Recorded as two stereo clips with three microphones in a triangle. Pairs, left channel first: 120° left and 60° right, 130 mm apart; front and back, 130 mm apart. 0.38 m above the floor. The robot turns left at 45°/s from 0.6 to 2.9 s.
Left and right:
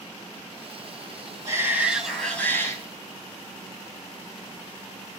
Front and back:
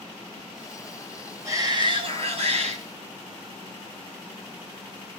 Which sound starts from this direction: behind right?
A shout, at 1.4 s.